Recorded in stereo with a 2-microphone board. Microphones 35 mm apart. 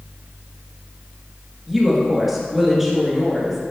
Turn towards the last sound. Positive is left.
turn(degrees=-5)  # may be behind; listen again after turning